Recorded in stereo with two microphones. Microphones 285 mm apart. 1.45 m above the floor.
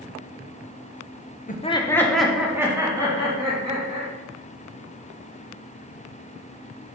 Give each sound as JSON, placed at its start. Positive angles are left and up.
{"t": 1.5, "sound": "laughter", "side_deg": 25, "distance_m": 0.7}